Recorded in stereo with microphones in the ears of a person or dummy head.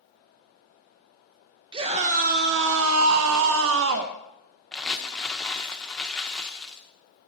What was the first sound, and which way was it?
A scream, 25° right (ahead or behind).